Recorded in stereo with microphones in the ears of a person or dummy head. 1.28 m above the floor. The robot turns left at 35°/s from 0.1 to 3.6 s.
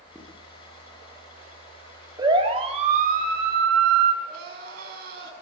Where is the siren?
25° right (ahead or behind), 4.5 m; by 4.1 s 65° right (ahead or behind), 3.5 m.